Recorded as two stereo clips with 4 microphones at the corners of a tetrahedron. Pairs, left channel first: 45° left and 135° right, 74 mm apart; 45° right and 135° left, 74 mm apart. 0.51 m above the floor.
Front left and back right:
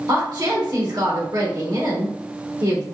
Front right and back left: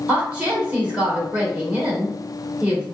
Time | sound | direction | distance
0.1 | a woman speaking | 155° right | 1.7 m